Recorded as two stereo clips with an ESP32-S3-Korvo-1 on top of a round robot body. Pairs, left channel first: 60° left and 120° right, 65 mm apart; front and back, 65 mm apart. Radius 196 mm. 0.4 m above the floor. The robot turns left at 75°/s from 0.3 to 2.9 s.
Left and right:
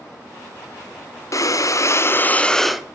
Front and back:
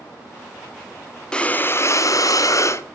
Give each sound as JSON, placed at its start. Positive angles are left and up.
{"t": 1.3, "sound": "breathing", "azimuth_deg": 75, "distance_m": 1.5}